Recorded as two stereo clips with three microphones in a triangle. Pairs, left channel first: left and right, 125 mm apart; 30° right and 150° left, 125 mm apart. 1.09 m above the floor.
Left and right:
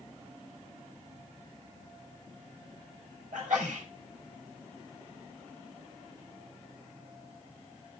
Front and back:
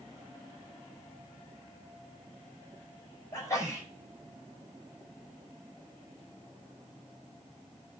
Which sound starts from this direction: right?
A sneeze, at 3.3 s.